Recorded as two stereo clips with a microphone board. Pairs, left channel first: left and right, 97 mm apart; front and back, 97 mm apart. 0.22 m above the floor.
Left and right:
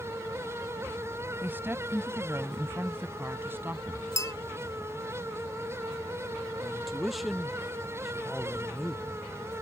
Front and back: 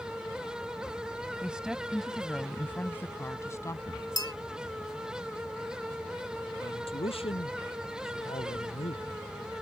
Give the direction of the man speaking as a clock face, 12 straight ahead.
12 o'clock.